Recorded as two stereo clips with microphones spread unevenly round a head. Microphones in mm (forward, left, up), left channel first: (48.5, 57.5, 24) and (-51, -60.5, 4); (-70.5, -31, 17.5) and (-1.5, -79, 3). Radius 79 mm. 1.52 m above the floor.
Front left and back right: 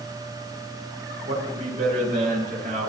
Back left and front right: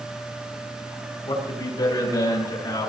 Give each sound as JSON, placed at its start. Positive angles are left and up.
{"t": 1.2, "sound": "a man speaking", "azimuth_deg": -175, "distance_m": 7.5}